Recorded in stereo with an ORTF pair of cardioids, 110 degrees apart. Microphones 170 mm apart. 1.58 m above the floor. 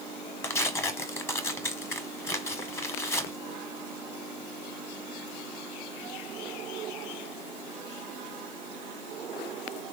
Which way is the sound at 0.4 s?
15° left.